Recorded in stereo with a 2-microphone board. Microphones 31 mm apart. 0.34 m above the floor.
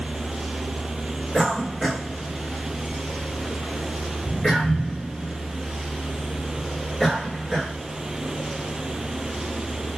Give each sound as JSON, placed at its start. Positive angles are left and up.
{"t": 1.3, "sound": "a cough", "side_deg": 20, "distance_m": 1.3}